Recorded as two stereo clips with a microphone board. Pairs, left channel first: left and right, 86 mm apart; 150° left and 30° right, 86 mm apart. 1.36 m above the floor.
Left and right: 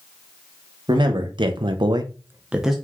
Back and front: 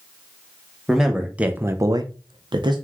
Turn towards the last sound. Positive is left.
turn(degrees=0)